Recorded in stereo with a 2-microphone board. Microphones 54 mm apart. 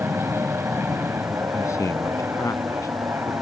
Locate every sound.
0.0 s an aircraft: 55° right (ahead or behind); by 3.4 s 50° right (ahead or behind)
1.5 s a man speaking: 80° left